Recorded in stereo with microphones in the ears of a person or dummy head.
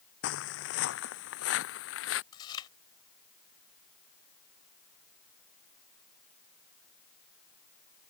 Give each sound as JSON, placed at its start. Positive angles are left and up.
{"t": 0.2, "sound": "footsteps", "side_deg": 65}
{"t": 2.3, "sound": "chewing", "side_deg": 30}